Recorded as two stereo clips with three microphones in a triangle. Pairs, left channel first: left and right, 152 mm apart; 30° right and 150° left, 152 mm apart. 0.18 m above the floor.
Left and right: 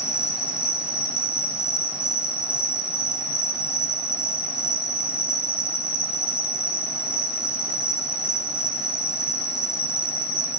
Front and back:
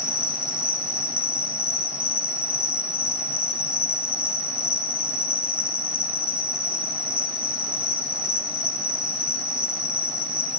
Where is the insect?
130° left, 4.5 m.